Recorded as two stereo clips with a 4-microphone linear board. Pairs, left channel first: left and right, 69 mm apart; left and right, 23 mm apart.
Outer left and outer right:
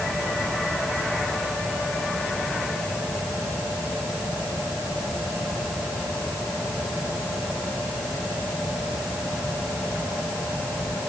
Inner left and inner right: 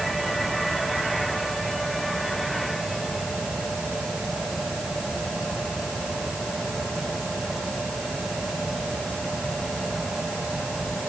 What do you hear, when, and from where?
Only background noise.